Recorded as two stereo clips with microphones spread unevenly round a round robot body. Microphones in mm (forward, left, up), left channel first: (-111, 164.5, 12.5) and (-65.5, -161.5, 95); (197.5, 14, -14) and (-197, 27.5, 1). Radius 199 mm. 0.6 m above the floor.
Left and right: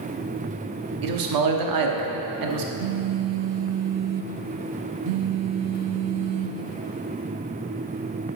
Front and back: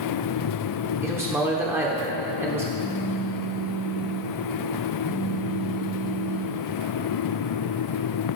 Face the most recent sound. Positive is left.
turn(degrees=-105)